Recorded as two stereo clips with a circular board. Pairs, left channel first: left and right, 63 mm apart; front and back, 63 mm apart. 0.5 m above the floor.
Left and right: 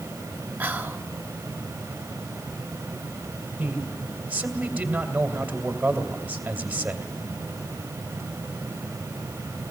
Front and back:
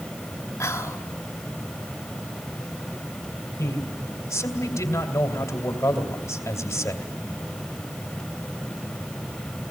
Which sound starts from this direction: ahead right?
Whispering, at 0.6 s.